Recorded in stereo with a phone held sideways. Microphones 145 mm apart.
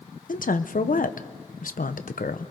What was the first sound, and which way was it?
A woman speaking, 70° left (ahead or behind).